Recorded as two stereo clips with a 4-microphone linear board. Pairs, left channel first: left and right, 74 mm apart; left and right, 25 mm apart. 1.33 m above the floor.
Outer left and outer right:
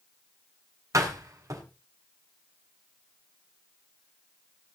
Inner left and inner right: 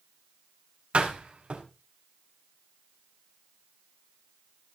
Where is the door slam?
45° right (ahead or behind), 5 m.